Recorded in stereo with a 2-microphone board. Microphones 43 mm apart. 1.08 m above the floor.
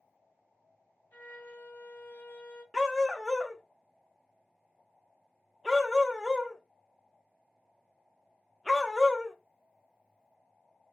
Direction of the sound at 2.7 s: Centre (ahead or behind).